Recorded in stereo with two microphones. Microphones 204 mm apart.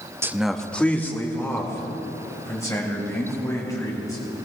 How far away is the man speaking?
About 0.6 m.